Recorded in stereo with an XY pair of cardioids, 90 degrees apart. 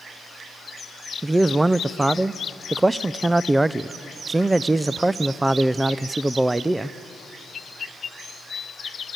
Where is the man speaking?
20° right, 0.5 m.